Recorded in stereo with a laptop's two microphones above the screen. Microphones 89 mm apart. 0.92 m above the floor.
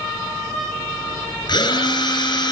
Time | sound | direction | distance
1.5 | a drill | 50° left (ahead or behind) | 7 m